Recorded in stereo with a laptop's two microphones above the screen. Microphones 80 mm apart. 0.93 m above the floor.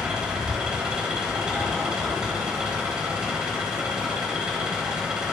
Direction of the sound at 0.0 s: 10° right (ahead or behind).